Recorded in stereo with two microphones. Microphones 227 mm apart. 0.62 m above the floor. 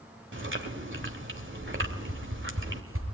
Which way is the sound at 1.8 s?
70° right (ahead or behind).